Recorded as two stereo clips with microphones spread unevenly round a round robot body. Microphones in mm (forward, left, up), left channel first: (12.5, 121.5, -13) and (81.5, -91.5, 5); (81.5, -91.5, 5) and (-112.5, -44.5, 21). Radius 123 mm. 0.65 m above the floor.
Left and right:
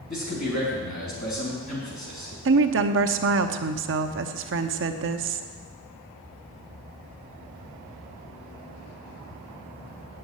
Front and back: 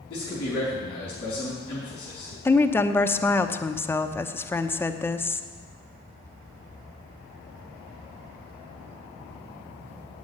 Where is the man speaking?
55° left, 4 m.